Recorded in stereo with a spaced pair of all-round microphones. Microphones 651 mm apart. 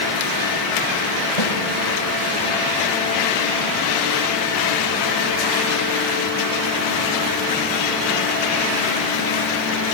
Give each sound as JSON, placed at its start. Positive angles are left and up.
{"t": 1.4, "sound": "a snare drum", "side_deg": 80, "distance_m": 8.0}